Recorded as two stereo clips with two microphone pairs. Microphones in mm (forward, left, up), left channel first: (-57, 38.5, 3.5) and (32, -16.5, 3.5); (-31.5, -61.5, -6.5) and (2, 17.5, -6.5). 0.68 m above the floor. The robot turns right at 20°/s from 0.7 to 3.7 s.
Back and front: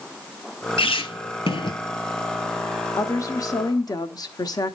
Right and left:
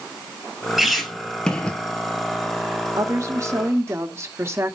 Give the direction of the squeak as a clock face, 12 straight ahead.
7 o'clock.